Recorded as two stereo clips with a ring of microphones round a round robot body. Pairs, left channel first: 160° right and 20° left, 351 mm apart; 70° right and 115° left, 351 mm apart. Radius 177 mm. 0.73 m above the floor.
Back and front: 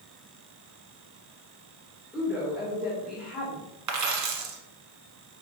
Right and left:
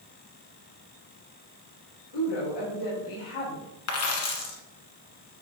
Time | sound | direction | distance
2.1 | a woman speaking | 65° right | 2.5 m
3.9 | a dropped coin | 20° right | 1.3 m